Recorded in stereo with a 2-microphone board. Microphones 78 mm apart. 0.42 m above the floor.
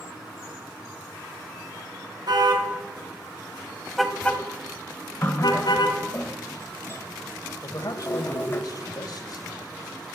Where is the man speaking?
55° left (ahead or behind), 2.0 m.